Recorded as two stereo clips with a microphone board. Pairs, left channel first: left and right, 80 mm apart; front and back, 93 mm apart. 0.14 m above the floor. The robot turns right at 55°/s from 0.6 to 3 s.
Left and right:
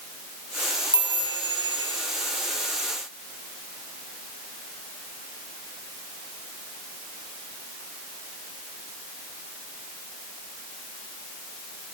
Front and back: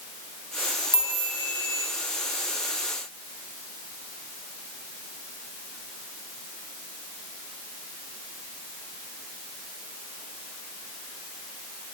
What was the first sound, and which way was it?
A chime, 120° right.